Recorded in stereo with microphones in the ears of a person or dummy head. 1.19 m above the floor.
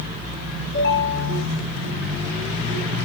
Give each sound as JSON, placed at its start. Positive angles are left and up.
{"t": 0.7, "sound": "a ringtone", "side_deg": 75, "distance_m": 6.5}